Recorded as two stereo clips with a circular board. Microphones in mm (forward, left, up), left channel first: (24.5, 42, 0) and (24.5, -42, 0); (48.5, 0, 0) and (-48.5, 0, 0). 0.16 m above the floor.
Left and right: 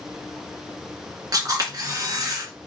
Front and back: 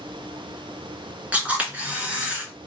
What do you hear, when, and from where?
1.3 s a camera shutter: 110° right, 1.9 m